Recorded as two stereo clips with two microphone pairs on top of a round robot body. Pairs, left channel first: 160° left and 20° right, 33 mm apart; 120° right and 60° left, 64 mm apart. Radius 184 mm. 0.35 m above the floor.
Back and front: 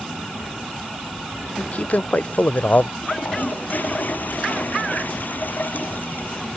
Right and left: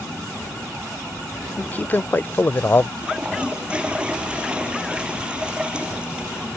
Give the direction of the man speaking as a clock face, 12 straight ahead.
6 o'clock.